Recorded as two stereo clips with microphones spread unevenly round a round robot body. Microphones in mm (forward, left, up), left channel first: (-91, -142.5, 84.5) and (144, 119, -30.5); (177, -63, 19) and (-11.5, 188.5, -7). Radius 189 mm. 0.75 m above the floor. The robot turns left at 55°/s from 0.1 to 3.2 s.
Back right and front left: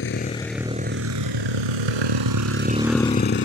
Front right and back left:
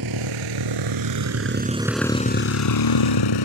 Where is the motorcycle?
170° left; by 3.5 s 75° right.